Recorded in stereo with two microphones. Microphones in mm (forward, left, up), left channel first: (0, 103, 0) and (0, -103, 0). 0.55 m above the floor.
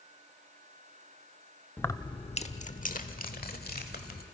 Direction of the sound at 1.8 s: 10° left (ahead or behind).